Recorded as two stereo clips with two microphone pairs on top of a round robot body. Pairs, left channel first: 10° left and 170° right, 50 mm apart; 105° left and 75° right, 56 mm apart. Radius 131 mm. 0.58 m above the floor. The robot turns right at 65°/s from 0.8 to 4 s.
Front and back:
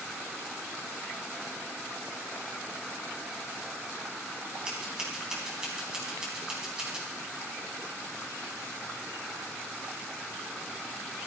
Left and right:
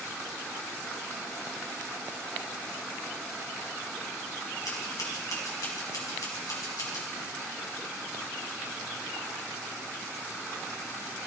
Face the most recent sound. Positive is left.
turn(degrees=115)